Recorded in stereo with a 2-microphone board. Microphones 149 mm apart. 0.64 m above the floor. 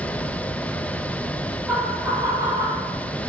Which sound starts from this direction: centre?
Laughter, at 1.7 s.